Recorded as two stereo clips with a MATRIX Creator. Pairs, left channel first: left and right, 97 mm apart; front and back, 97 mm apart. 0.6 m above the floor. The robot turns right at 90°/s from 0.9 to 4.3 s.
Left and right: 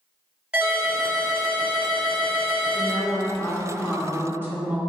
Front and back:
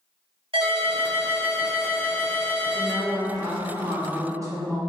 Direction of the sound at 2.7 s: 75° left.